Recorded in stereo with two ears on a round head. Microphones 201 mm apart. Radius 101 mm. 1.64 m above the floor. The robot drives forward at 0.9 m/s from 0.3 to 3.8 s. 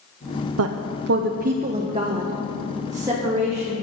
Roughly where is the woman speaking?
Right.